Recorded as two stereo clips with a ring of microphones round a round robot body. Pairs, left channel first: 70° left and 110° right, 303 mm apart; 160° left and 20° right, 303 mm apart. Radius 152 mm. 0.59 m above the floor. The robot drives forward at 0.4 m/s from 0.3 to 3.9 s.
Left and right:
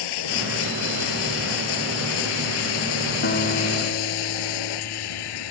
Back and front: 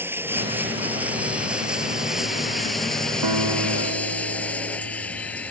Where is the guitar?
10° left.